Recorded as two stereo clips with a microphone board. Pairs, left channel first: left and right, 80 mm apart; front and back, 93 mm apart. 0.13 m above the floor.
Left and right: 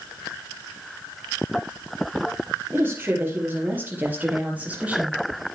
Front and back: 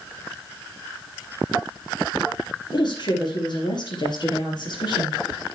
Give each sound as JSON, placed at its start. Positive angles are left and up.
{"t": 2.7, "sound": "a woman speaking", "azimuth_deg": -30, "distance_m": 4.5}